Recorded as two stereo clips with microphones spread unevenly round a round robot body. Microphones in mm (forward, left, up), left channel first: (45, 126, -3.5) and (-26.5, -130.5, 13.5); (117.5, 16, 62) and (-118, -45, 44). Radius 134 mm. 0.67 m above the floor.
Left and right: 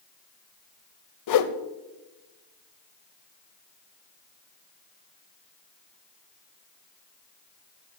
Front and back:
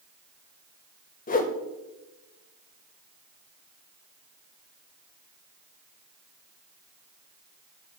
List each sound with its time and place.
1.3 s a whoosh: 70° left, 0.7 m